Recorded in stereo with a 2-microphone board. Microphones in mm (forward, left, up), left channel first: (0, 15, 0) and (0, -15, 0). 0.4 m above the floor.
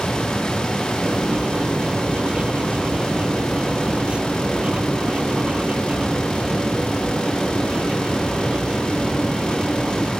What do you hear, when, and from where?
1.0 s writing: 35° right (ahead or behind)